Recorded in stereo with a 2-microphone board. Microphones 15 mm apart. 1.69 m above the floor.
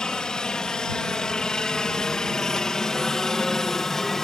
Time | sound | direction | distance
0.0 | a helicopter | 70° left (ahead or behind) | ?